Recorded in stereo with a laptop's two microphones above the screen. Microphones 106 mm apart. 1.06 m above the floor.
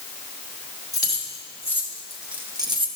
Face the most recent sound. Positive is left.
turn(degrees=-55)  # may be behind; listen again after turning